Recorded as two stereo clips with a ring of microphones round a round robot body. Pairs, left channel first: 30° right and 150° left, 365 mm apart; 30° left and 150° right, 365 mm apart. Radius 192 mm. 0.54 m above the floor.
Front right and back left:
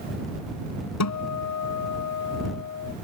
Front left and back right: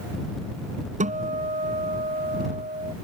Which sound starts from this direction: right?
A guitar, at 1.0 s.